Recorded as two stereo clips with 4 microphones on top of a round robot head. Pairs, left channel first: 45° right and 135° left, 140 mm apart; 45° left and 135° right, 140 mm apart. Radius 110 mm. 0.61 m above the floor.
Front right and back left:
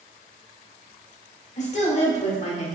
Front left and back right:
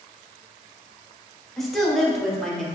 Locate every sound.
1.6 s a woman speaking: 45° right, 1.3 m